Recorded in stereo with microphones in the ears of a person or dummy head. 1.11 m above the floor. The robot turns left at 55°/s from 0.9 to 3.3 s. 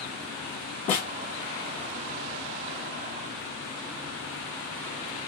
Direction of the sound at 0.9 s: 35° left (ahead or behind).